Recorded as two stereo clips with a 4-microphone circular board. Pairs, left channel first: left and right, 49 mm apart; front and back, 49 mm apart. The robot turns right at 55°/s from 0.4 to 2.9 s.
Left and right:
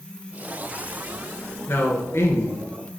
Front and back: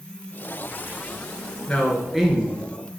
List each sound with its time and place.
1.7 s a man speaking: 65° left, 2.5 m; by 2.6 s 115° left, 2.5 m